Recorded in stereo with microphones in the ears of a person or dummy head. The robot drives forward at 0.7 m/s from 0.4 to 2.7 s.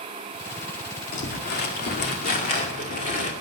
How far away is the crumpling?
About 2 m.